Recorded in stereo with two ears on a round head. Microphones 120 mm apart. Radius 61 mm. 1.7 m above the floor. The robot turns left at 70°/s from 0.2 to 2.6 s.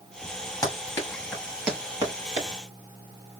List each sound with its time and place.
0.6 s running footsteps: 25° left (ahead or behind), 1.9 m; by 2.5 s 45° right (ahead or behind), 2.5 m